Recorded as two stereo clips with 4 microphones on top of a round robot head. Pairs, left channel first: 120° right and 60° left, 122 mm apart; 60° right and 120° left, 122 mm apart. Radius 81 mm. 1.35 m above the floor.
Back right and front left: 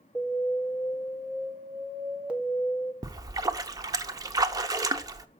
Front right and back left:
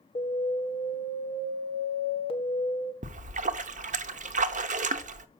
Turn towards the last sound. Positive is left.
turn(degrees=115)